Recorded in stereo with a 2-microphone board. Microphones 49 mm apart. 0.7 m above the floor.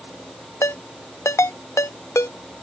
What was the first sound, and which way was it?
A ringtone, 75° left (ahead or behind).